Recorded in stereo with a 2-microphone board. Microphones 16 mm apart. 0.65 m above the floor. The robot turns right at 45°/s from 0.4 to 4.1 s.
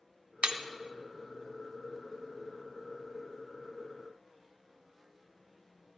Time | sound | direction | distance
0.4 | breaking glass | 80° right | 0.5 m